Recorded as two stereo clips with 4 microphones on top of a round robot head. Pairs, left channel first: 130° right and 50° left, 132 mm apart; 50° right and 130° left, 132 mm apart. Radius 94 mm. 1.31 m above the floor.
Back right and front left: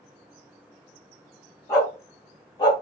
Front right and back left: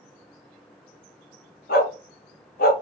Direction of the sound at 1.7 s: 60° right.